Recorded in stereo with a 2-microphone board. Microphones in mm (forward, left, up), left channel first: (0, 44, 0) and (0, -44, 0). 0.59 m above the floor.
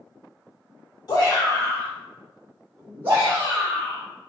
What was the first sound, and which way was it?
A shout, 50° left (ahead or behind).